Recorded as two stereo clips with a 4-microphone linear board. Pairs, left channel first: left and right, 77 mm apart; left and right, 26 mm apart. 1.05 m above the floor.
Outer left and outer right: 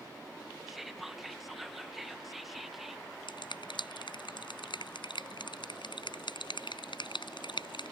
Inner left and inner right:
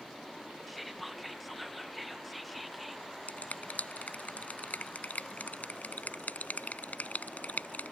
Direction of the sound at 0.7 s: Centre (ahead or behind).